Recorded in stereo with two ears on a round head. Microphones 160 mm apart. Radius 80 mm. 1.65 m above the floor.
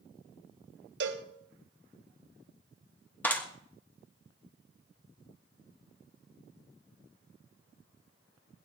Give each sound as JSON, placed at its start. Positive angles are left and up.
{"t": 1.0, "sound": "a cowbell", "side_deg": -70, "distance_m": 2.5}
{"t": 3.2, "sound": "a clap", "side_deg": 10, "distance_m": 1.9}